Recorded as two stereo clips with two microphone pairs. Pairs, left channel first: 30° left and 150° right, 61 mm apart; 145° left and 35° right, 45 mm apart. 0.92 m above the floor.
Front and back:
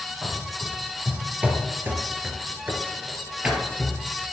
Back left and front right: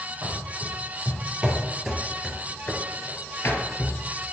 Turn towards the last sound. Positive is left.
turn(degrees=135)